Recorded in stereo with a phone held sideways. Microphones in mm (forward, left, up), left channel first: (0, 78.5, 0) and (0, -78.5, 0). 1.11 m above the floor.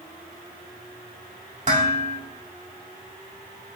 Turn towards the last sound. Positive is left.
turn(degrees=-50)  # may be behind; listen again after turning